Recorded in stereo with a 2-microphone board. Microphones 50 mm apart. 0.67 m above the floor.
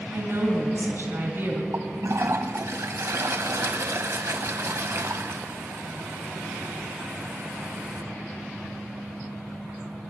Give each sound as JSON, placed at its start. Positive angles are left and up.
{"t": 0.1, "sound": "a woman speaking", "side_deg": -55, "distance_m": 3.0}
{"t": 1.7, "sound": "a toilet flushing", "side_deg": -70, "distance_m": 0.9}